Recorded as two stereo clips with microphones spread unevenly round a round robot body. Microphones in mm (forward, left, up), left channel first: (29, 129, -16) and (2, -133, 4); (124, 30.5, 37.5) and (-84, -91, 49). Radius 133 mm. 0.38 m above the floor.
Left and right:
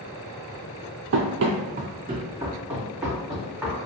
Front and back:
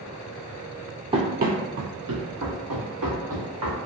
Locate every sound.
1.1 s running footsteps: 90° right, 0.5 m; by 3.8 s 170° left, 1.5 m